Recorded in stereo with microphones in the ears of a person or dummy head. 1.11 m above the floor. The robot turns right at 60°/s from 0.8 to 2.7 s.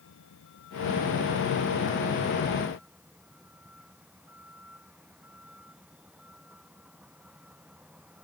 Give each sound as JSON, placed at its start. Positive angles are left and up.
{"t": 0.0, "sound": "a vehicle", "azimuth_deg": 70}